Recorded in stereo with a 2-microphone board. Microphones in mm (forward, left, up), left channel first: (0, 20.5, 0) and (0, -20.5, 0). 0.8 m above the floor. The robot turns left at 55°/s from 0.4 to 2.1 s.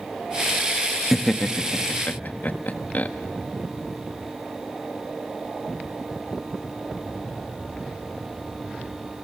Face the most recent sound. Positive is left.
turn(degrees=40)  # may be behind; listen again after turning